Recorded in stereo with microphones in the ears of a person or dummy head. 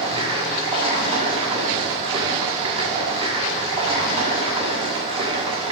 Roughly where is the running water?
Right.